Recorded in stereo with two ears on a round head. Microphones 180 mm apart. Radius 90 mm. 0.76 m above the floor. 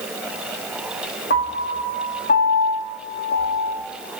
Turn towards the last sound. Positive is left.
turn(degrees=50)  # may be behind; listen again after turning